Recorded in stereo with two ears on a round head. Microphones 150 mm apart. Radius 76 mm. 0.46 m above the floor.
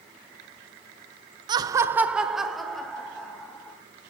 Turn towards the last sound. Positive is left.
turn(degrees=5)  # may be behind; listen again after turning